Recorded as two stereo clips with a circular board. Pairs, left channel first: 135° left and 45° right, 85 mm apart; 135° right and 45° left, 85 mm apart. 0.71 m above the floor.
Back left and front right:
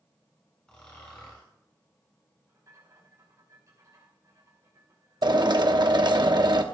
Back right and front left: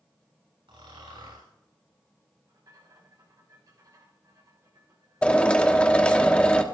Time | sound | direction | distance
0.7 | snoring | 55° left | 7.5 m
2.5 | a rattle | straight ahead | 5.5 m
5.2 | a drill | 60° right | 0.9 m